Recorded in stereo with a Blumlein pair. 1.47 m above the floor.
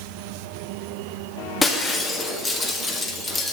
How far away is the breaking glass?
About 1.7 m.